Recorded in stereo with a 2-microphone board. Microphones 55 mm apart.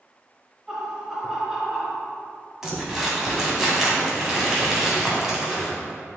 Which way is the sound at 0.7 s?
10° right (ahead or behind).